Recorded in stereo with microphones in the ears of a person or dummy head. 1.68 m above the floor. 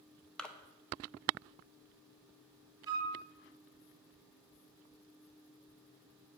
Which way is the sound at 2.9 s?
20° right (ahead or behind).